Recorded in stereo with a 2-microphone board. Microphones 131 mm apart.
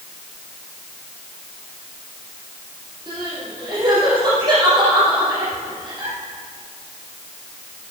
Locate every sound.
3.1 s crying: 35° right (ahead or behind), 5.5 m